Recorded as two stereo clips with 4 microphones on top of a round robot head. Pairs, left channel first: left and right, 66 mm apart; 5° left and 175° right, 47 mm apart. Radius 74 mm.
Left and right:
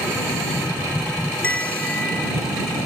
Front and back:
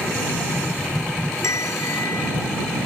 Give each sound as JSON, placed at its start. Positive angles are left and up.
{"t": 1.4, "sound": "a bell", "azimuth_deg": 20}